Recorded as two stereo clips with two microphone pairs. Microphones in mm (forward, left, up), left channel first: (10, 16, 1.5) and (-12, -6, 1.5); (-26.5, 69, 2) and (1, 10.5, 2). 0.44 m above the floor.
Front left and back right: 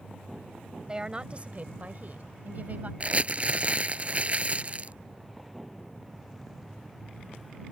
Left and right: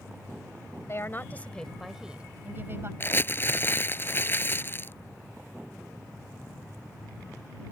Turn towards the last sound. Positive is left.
turn(degrees=170)